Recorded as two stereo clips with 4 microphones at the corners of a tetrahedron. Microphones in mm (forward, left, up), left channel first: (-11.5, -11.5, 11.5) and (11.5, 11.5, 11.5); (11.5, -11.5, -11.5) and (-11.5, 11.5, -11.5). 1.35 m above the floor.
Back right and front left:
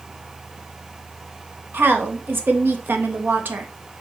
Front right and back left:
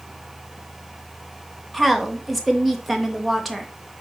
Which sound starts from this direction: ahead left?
A woman speaking, at 1.7 s.